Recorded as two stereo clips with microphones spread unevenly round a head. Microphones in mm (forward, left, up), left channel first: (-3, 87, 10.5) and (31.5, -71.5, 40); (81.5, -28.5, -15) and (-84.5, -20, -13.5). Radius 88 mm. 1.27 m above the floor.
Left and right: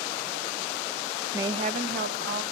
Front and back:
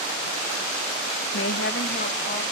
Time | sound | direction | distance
1.3 | a woman speaking | straight ahead | 0.7 m